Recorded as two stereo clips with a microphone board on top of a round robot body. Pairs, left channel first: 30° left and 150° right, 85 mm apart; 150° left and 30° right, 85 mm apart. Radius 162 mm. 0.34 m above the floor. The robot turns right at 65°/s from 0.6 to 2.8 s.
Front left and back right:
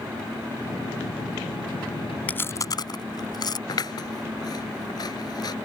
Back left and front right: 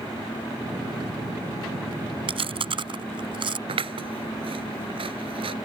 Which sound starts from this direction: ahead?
Scissors, at 3.7 s.